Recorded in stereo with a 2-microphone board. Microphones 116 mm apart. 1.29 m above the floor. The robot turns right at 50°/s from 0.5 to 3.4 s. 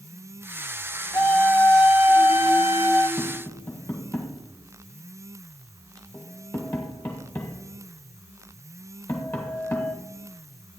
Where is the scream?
145° left, 2.5 m; by 3.1 s 115° right, 2.5 m.